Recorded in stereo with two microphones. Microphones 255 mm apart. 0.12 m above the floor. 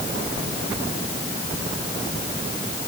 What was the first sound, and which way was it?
Only background noise.